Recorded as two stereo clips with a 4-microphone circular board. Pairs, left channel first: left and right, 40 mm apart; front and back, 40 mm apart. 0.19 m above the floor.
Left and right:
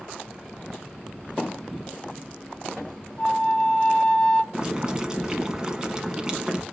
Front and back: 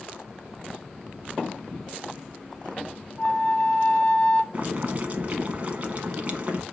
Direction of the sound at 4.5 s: 150° right.